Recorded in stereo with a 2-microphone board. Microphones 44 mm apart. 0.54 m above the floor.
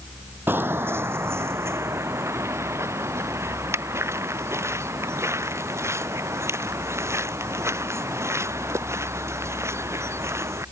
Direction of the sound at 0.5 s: 50° right (ahead or behind).